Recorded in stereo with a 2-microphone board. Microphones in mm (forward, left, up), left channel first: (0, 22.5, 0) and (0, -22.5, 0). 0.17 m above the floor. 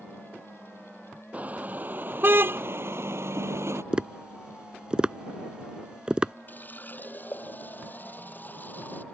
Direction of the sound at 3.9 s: 20° right (ahead or behind).